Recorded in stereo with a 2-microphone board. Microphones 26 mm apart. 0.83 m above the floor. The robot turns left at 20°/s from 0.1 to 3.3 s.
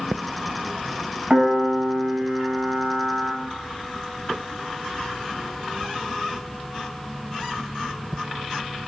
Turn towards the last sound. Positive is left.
turn(degrees=-90)